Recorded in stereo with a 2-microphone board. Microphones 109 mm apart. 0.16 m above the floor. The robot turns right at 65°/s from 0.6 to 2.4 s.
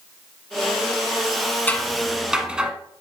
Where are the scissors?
15° left (ahead or behind), 1.0 m; by 2.7 s 10° right (ahead or behind), 1.0 m.